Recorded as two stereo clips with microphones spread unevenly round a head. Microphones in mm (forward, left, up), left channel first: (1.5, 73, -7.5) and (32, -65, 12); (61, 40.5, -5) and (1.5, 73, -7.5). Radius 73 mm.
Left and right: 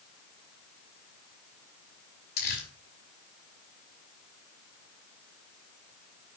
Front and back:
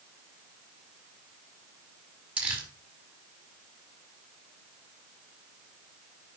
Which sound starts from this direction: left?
Crumpling, at 2.4 s.